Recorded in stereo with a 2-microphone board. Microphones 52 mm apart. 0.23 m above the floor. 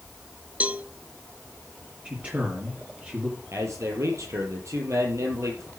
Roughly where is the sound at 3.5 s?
Right.